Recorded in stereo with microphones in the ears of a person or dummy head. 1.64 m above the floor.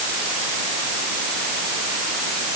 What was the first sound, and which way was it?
Only background noise.